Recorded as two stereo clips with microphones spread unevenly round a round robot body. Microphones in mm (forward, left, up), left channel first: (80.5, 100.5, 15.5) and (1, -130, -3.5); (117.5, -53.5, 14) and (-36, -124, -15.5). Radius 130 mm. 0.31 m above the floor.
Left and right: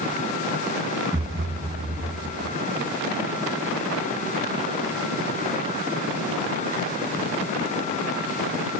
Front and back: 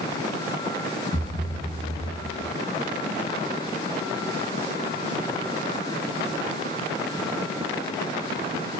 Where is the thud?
25° right, 2 m.